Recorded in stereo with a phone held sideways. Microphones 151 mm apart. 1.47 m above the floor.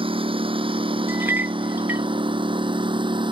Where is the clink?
15° right (ahead or behind).